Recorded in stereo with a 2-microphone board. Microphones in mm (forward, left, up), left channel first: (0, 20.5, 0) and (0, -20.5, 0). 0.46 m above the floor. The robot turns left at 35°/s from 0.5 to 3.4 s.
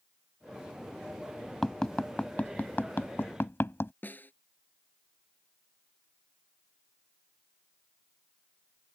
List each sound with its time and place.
1.6 s tapping: 10° left (ahead or behind); by 3.9 s 75° left (ahead or behind)
4.0 s a snare drum: 50° left (ahead or behind)